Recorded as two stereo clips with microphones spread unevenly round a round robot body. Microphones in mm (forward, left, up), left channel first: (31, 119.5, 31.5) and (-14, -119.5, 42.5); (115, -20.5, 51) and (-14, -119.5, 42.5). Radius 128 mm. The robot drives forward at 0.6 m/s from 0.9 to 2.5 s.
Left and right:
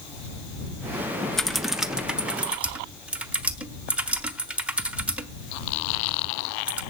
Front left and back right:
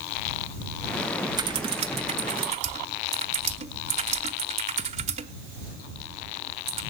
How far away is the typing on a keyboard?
About 0.6 m.